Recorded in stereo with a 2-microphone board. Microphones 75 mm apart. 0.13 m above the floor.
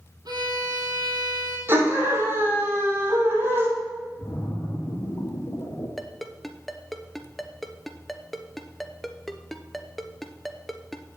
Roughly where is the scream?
Right.